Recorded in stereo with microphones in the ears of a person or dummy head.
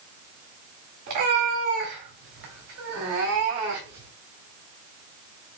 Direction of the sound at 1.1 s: 50° right (ahead or behind).